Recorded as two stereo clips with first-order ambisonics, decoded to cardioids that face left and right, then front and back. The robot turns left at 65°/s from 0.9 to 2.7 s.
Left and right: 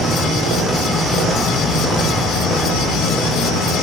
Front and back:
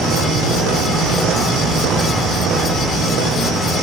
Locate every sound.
0.0 s an insect: 155° right, 2.0 m; by 3.8 s 90° left, 2.0 m